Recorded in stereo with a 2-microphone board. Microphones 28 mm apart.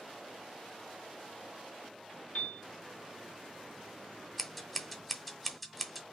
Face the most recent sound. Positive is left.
turn(degrees=5)  # may be behind; listen again after turning